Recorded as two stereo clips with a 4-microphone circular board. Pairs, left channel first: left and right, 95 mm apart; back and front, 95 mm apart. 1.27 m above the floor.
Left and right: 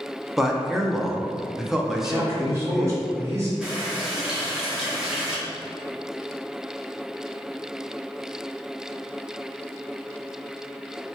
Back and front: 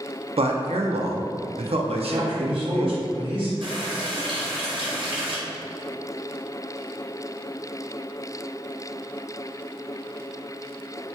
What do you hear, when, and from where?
0.4 s a man speaking: 5° right, 0.5 m
1.9 s a man speaking: 30° right, 1.2 m
3.6 s a running tap: 5° right, 0.8 m